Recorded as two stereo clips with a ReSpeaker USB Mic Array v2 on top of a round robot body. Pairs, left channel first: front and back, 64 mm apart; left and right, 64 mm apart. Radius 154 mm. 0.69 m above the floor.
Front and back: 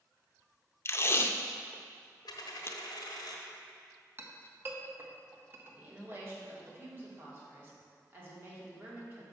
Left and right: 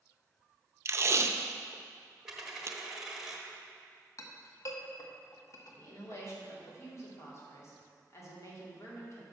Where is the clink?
125° left, 0.9 m.